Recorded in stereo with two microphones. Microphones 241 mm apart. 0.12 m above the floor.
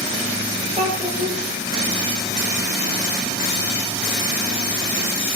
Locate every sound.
0.8 s a child speaking: 25° right (ahead or behind), 2.5 m